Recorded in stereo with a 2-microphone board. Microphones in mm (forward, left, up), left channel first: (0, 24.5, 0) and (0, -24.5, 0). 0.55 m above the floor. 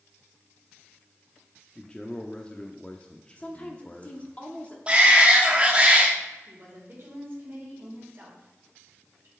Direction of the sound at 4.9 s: 25° right (ahead or behind).